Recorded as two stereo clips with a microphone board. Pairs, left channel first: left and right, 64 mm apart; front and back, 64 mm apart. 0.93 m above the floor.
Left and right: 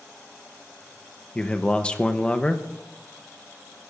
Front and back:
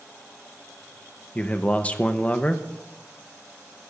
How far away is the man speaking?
About 0.9 m.